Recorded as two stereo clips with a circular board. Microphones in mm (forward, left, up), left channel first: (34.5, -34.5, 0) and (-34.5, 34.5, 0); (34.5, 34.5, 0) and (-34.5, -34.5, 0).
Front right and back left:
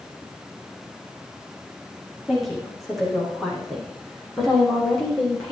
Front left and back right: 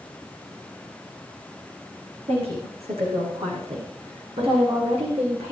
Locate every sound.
2.3 s a woman speaking: 135° right, 8 m; by 5.5 s 125° right, 7 m